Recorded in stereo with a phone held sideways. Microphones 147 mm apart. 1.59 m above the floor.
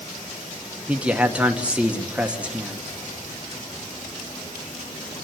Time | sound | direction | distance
0.9 | a man speaking | 10° right (ahead or behind) | 1.6 m